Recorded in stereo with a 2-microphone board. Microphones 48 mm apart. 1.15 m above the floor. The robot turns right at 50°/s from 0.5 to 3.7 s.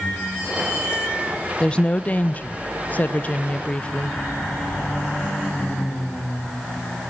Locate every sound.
1.6 s a woman speaking: 35° left, 0.6 m; by 4.2 s 140° left, 0.6 m